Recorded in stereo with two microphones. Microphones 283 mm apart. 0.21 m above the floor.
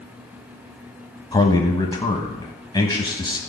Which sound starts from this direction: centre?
A man speaking, at 1.3 s.